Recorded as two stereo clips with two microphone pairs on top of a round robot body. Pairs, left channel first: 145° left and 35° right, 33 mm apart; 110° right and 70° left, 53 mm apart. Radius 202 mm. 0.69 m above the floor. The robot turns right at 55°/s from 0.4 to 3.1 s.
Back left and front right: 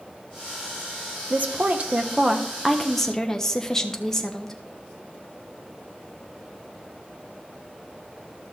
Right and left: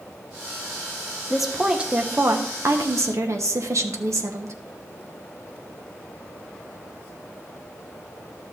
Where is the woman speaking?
35° right, 1.3 m; by 4.5 s 65° left, 1.3 m.